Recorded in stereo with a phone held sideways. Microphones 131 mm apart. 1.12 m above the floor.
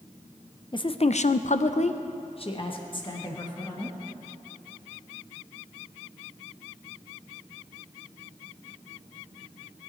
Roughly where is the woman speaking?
Left.